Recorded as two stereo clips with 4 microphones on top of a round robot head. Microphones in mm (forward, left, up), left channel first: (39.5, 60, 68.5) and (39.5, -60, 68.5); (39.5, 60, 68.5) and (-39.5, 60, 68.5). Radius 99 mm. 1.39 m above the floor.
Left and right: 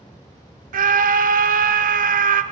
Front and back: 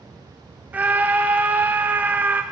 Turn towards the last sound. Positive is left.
turn(degrees=-105)